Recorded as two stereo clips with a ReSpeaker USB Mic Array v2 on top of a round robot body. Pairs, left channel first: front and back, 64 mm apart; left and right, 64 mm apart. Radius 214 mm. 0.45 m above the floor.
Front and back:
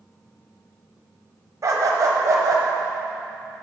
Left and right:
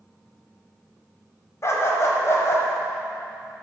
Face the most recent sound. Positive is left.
turn(degrees=140)